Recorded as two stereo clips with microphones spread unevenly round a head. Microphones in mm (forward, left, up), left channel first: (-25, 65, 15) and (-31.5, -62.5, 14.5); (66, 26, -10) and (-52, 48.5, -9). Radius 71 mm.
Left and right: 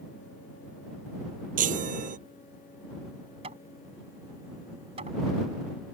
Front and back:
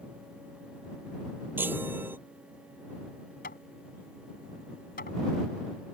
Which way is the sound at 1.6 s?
115° right.